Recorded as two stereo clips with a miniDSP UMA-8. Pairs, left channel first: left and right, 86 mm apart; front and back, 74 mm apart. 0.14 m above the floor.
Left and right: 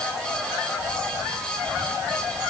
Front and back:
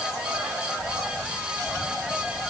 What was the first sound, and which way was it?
Only background noise.